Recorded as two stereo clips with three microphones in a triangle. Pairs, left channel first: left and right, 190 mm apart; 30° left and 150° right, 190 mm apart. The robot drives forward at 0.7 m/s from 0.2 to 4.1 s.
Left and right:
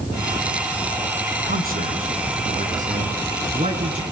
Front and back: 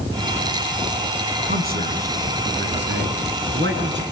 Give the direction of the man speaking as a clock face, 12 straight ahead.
4 o'clock.